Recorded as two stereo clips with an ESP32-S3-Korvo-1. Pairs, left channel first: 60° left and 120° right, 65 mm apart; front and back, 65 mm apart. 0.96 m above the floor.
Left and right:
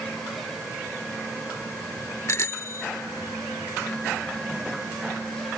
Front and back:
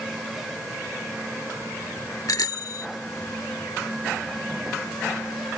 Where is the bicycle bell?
20° left.